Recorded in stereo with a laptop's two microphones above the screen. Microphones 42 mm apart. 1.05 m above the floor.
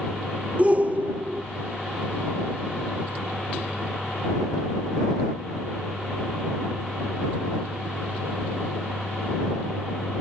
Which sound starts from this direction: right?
A shout, at 0.6 s.